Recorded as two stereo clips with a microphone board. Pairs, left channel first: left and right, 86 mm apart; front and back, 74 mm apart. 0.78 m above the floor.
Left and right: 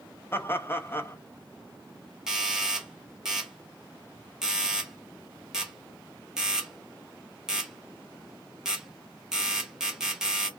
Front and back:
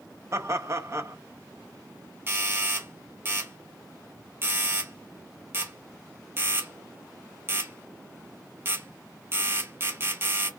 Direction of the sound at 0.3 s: 145° left.